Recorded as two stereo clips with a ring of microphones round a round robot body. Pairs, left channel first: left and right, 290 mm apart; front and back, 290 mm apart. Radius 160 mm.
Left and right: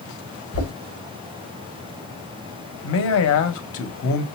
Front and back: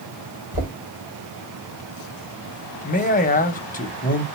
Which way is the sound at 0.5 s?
125° left.